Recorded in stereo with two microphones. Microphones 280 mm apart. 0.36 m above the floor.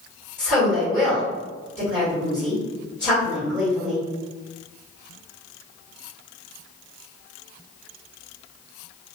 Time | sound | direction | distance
0.4 | a woman speaking | 5° left (ahead or behind) | 1.4 m